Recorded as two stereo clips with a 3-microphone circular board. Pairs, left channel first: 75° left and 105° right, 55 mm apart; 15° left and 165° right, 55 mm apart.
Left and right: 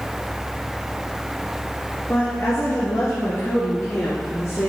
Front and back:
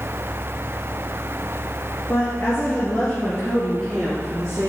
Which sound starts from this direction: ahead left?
A woman speaking, at 2.1 s.